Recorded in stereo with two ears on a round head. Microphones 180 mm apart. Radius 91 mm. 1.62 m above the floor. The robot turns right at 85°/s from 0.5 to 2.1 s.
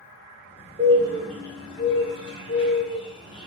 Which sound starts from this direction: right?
A bird, at 0.8 s.